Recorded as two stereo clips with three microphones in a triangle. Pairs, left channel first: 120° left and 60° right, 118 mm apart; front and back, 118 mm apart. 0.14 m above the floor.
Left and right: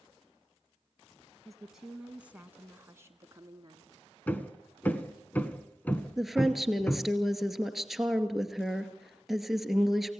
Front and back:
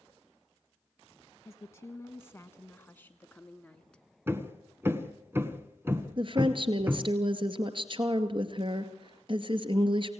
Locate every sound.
1.4 s a woman speaking: 30° left, 1.4 m; by 4.0 s 80° right, 1.5 m
4.3 s hammering: 165° left, 1.3 m
6.2 s a woman speaking: 150° right, 2 m